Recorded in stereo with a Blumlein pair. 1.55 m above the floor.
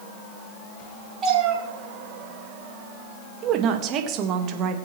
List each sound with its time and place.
1.2 s a cat meowing: 25° right, 5.5 m
3.4 s a woman speaking: 35° right, 1.9 m